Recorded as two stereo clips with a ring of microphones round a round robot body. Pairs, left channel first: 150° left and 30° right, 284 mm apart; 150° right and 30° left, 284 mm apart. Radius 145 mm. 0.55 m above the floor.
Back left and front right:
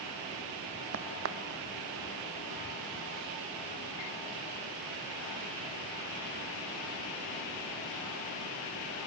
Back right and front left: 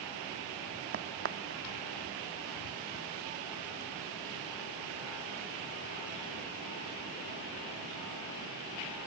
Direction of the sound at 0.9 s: 5° right.